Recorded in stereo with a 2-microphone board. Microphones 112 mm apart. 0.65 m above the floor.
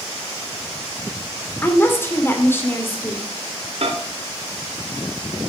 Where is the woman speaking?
20° left (ahead or behind), 2 m.